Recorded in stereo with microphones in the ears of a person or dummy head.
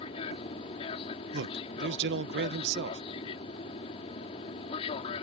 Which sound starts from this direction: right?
A man speaking, at 1.3 s.